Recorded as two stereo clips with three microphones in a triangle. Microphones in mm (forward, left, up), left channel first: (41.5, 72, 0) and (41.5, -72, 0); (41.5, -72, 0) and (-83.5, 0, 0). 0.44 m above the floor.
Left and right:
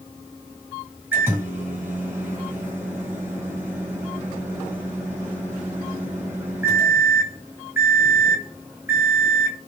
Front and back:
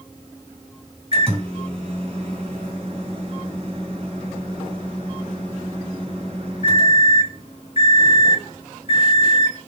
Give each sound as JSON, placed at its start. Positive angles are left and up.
{"t": 1.1, "sound": "a microwave", "azimuth_deg": -165, "distance_m": 1.9}